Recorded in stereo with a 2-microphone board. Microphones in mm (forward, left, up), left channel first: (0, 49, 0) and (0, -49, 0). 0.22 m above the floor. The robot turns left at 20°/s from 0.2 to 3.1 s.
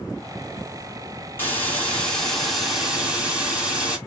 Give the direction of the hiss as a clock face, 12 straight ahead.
11 o'clock.